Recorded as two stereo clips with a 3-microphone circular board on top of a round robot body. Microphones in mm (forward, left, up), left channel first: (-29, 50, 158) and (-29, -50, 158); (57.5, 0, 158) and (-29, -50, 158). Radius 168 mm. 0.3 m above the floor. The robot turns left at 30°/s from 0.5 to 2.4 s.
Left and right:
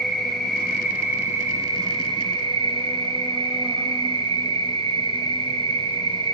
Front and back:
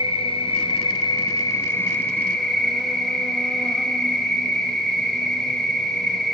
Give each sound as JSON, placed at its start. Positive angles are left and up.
{"t": 0.0, "sound": "an insect", "azimuth_deg": 0, "distance_m": 1.2}